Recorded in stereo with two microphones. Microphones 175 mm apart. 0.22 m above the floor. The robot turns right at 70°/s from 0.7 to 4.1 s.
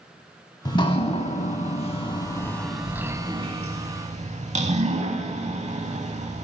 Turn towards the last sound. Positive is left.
turn(degrees=-40)  # may be behind; listen again after turning